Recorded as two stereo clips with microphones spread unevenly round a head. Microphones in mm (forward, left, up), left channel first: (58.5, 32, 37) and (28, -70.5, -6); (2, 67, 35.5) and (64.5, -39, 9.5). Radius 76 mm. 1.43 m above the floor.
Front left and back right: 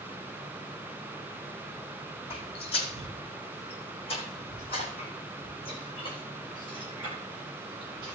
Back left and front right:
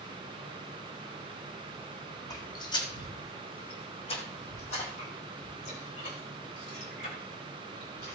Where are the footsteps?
70° left, 3.5 m; by 8.2 s 130° left, 5 m.